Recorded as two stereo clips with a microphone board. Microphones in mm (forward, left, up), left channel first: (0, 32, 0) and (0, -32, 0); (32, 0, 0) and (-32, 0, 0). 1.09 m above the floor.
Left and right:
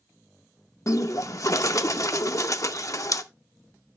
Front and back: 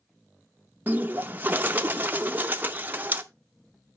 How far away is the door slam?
I don't hear a door slam.